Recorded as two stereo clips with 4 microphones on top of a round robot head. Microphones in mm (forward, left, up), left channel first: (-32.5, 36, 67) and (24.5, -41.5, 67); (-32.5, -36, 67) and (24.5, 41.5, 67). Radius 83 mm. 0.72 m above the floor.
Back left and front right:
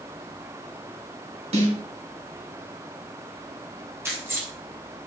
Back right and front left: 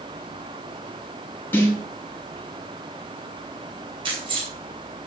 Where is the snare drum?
55° right, 4.5 m.